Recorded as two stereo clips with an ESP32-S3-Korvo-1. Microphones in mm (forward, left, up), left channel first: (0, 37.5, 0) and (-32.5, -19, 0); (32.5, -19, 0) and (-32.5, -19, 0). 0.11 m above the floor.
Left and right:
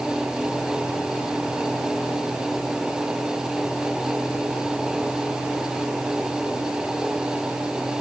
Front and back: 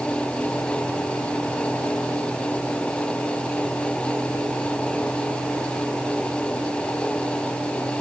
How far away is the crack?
No crack in this recording.